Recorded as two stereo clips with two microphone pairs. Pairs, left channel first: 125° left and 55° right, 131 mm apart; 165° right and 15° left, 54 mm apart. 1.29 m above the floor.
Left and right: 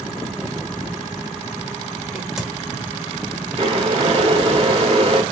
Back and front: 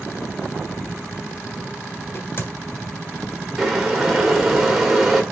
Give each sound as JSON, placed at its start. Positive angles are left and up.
{"t": 2.1, "sound": "a crack", "azimuth_deg": -140, "distance_m": 1.3}
{"t": 3.6, "sound": "boiling", "azimuth_deg": -65, "distance_m": 1.3}